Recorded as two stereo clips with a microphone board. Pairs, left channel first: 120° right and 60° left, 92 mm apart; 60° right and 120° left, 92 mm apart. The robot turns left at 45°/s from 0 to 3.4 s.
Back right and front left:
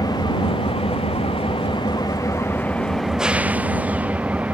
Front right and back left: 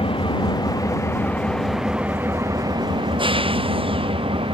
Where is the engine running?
75° right; by 4.5 s 135° left.